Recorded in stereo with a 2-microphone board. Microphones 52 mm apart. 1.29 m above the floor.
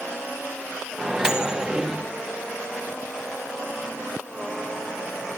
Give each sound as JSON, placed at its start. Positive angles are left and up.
{"t": 1.0, "sound": "a microwave", "side_deg": -15, "distance_m": 1.0}